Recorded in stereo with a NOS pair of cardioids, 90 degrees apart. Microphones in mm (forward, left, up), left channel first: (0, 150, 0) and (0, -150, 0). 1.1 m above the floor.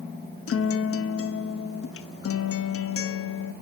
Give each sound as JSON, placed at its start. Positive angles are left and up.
{"t": 0.5, "sound": "a guitar", "azimuth_deg": 45, "distance_m": 1.2}